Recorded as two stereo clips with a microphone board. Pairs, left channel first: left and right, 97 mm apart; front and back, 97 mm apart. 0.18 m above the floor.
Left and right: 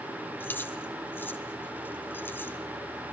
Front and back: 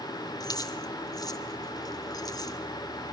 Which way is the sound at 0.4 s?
30° left.